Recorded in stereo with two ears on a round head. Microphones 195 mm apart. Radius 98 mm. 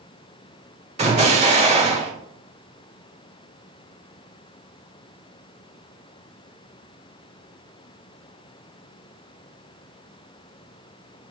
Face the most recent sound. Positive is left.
turn(degrees=-30)  # may be behind; listen again after turning